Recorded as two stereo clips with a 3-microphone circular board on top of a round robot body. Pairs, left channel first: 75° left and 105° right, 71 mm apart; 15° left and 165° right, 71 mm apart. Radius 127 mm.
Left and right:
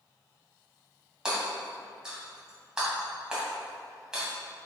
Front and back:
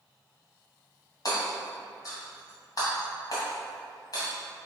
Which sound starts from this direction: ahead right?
Hammering, at 1.2 s.